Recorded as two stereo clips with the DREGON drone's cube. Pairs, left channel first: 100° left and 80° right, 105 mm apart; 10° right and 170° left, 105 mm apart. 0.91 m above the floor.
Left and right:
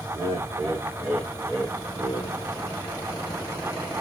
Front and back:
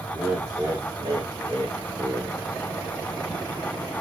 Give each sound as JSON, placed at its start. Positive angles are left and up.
{"t": 0.1, "sound": "laughter", "azimuth_deg": -105, "distance_m": 1.1}